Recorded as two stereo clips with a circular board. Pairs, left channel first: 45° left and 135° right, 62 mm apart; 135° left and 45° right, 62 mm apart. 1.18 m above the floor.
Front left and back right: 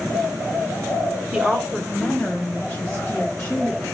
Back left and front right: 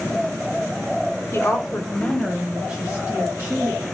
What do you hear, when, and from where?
1.3 s a woman speaking: 150° left, 0.7 m; by 3.8 s straight ahead, 1.1 m